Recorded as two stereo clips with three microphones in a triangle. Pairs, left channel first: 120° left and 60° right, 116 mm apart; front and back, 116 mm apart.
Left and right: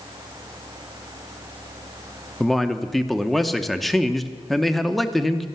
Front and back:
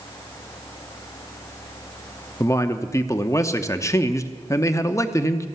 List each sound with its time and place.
2.4 s a man speaking: 35° left, 0.8 m